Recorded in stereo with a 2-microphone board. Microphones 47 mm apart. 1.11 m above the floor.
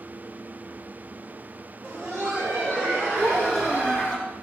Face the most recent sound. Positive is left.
turn(degrees=-75)  # may be behind; listen again after turning